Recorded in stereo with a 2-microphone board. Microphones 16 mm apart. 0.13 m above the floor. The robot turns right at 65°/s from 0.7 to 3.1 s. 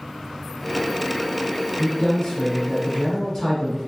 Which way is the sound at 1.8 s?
25° left.